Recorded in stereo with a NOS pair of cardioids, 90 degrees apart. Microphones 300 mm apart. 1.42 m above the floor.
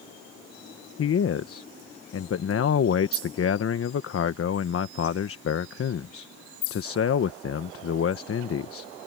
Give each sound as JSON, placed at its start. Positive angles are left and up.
{"t": 1.0, "sound": "a man speaking", "azimuth_deg": 50}